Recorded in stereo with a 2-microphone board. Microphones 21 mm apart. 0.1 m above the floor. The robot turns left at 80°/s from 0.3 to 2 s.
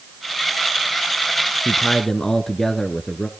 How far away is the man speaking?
About 1.1 m.